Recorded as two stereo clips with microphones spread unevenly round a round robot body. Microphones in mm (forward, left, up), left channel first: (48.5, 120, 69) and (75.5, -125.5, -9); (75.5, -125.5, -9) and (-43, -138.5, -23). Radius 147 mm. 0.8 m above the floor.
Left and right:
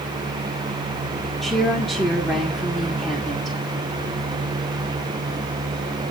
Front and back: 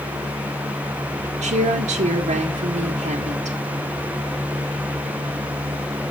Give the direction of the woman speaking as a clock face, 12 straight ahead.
6 o'clock.